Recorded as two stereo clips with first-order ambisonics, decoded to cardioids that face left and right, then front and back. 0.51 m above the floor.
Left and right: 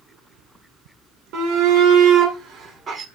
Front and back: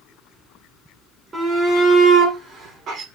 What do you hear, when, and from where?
1.3 s a shout: 110° right, 2 m; by 3.0 s 155° right, 1.8 m